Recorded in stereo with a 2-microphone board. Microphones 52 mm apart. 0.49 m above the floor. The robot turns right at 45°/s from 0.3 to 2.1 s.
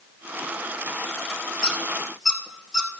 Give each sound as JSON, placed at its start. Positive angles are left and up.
{"t": 1.6, "sound": "a squeak", "side_deg": 20, "distance_m": 1.5}